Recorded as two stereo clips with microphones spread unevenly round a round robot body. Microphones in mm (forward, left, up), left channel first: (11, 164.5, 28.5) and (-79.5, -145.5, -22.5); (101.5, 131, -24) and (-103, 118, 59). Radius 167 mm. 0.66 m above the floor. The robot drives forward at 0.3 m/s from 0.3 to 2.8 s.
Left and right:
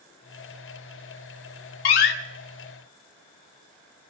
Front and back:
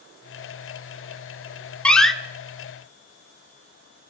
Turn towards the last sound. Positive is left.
turn(degrees=90)